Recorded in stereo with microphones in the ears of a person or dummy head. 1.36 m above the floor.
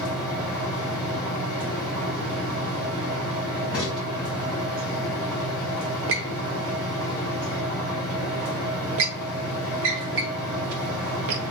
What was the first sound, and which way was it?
A fan, 20° left (ahead or behind).